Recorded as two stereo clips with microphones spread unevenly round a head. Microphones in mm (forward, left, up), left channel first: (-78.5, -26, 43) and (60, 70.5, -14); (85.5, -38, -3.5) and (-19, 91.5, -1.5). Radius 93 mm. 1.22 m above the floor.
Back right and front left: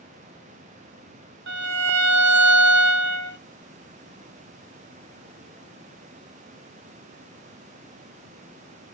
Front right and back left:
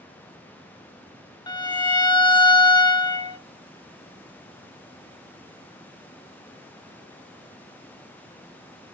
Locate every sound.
1.5 s a violin: 15° left, 1.4 m